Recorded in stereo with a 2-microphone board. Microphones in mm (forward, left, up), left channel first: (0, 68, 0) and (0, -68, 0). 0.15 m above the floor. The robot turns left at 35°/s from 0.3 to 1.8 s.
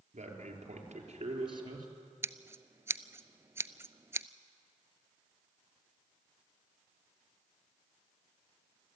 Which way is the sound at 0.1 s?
90° right.